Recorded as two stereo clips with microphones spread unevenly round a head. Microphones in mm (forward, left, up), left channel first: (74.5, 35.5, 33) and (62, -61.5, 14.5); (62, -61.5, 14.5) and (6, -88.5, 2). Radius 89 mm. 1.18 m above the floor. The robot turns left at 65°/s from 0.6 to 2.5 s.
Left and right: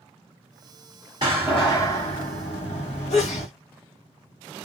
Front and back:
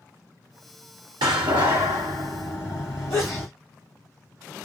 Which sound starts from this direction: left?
A sneeze, at 3.1 s.